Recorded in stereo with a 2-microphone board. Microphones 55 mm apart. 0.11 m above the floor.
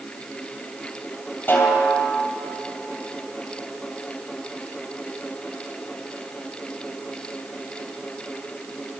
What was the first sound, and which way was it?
A snare drum, 35° left (ahead or behind).